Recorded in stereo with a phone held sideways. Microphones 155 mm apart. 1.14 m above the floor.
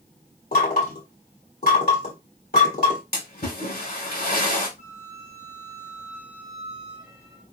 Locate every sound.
0.5 s knocking: 75° left (ahead or behind), 3 m
3.1 s a splash: 85° left, 4 m
4.8 s a flute: 85° left, 3.5 m